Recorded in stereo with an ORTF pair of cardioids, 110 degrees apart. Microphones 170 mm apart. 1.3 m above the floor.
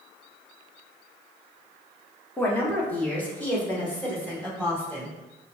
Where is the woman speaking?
10° left, 1.2 m.